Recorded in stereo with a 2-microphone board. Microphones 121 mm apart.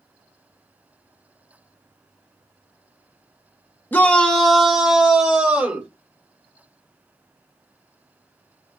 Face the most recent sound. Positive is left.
turn(degrees=-10)  # may be behind; listen again after turning